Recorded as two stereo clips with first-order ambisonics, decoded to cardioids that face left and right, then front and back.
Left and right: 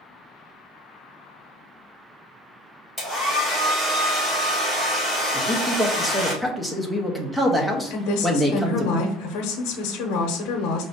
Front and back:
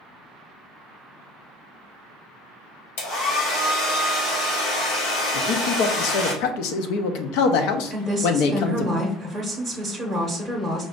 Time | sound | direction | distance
3.0 | a hair dryer | straight ahead | 1.8 m
5.3 | a man speaking | 5° right | 0.7 m
7.9 | a woman speaking | 85° left | 0.8 m